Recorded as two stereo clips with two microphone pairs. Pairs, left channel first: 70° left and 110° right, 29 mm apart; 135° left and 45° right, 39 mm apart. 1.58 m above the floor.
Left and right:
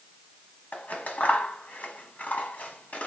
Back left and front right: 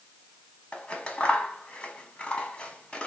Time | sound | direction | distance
0.7 | scissors | 75° left | 0.9 m